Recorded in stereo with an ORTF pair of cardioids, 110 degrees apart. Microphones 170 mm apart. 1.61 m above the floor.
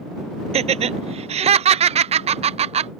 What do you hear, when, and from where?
0.5 s laughter: 40° right